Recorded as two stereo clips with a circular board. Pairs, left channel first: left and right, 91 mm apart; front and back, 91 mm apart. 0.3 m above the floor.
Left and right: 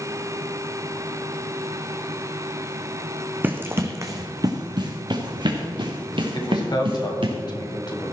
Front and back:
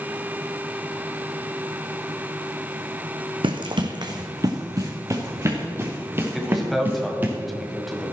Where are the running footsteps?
160° right, 1.1 m; by 7.3 s 110° right, 3 m.